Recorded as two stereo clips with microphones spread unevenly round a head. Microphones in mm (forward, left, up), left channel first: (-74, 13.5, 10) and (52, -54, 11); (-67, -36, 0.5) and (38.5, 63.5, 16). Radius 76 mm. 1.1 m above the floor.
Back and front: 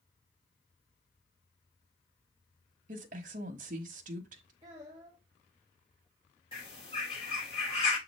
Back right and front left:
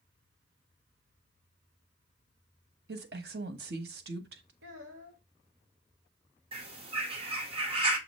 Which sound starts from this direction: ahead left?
A child speaking, at 4.6 s.